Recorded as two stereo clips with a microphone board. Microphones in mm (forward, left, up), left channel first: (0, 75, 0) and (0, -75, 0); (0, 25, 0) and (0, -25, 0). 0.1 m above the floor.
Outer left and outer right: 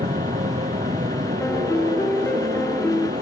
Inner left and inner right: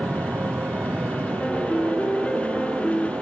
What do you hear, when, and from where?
0.0 s an aircraft: 60° right (ahead or behind)
1.4 s a piano: 10° left (ahead or behind)